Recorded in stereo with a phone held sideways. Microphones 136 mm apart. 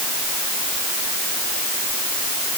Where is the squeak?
No squeak in this recording.